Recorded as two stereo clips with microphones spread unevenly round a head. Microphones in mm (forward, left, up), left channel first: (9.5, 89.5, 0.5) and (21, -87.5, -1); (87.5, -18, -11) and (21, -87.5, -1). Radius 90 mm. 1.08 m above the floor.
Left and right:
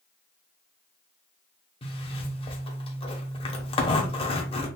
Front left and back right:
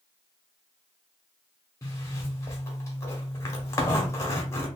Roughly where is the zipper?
Left.